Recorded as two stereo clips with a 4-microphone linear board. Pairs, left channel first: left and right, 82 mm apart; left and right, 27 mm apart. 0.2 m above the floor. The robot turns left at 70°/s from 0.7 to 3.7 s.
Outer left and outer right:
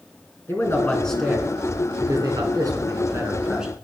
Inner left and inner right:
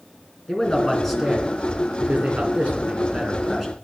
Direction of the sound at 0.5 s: 35° left.